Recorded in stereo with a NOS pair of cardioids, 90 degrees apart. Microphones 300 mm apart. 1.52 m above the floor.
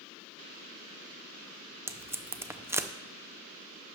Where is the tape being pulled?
10° right, 0.7 m.